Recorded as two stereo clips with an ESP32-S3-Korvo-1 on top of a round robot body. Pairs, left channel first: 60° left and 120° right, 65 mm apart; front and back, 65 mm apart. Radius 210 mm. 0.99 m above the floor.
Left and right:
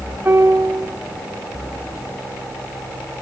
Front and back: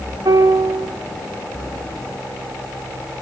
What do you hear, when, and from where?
0.2 s a piano: 175° right, 3.5 m